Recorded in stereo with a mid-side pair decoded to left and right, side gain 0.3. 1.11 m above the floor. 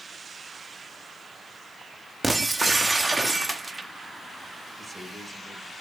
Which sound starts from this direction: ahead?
A man speaking, at 4.8 s.